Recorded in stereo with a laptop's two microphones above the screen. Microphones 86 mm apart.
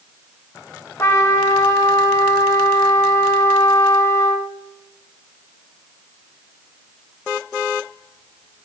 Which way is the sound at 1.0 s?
30° left (ahead or behind).